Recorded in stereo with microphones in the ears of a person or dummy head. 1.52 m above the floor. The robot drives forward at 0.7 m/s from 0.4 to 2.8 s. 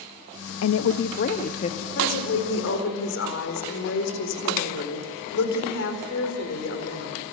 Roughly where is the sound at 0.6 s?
Left.